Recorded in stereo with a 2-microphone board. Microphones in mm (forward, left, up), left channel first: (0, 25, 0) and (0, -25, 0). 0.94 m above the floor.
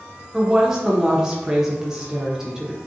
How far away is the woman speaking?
About 0.7 m.